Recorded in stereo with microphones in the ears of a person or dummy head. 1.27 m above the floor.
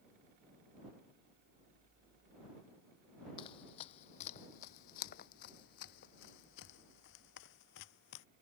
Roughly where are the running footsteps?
Left.